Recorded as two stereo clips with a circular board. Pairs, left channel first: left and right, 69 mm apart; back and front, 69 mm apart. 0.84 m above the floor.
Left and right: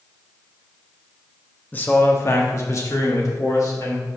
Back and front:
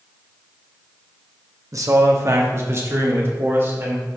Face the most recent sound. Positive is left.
turn(degrees=55)